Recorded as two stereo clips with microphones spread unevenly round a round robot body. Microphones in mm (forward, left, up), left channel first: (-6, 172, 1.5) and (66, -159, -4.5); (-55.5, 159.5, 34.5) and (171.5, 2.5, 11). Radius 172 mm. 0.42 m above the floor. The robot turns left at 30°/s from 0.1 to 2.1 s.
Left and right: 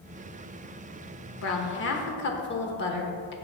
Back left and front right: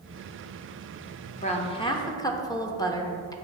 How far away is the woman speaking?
About 1.0 m.